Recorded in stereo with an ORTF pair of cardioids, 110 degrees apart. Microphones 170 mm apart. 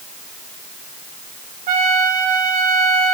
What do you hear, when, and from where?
1.7 s a trumpet: 55° right, 2.0 m